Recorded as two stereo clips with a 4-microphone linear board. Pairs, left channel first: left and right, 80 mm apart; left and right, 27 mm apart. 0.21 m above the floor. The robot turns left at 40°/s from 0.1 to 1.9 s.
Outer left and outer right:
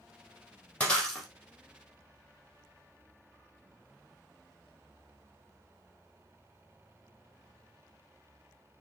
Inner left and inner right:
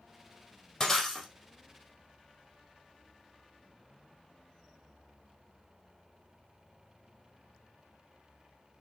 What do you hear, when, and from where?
0.8 s breaking glass: 20° left (ahead or behind), 3 m; by 1.3 s centre (ahead or behind), 3 m